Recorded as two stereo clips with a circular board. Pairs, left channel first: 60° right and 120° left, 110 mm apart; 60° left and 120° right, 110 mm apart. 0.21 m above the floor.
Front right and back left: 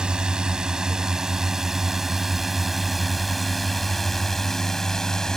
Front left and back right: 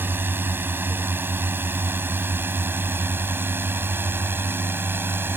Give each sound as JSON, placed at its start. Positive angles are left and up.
{"t": 0.0, "sound": "a drone", "azimuth_deg": -165}